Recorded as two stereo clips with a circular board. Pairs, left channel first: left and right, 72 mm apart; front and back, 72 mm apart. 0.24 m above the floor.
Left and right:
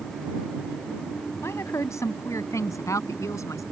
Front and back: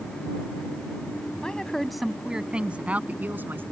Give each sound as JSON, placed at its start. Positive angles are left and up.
{"t": 1.4, "sound": "a woman speaking", "azimuth_deg": 70}